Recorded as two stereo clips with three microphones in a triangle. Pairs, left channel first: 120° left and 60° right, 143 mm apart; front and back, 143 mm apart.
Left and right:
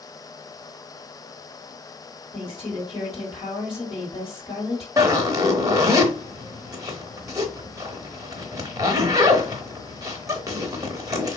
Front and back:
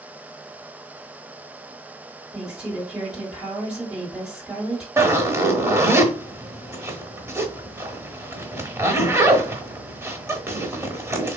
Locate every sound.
2.3 s a woman speaking: 100° left, 2.0 m
5.0 s a zipper: 120° right, 0.8 m